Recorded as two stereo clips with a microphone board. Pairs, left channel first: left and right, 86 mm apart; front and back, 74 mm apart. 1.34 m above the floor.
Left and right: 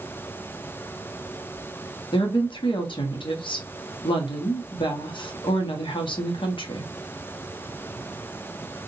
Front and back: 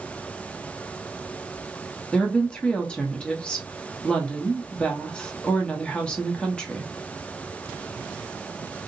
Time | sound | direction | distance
2.1 | a woman speaking | 75° left | 0.6 m